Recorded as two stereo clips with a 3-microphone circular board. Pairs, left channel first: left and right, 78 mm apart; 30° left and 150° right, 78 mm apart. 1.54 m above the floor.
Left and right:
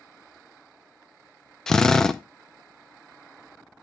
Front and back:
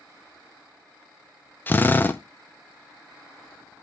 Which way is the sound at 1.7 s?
15° left.